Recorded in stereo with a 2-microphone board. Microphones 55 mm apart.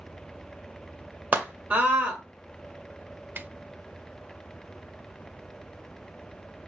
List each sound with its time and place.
1.3 s a scream: 25° right (ahead or behind), 1.8 m
3.4 s a snare drum: 35° right (ahead or behind), 0.6 m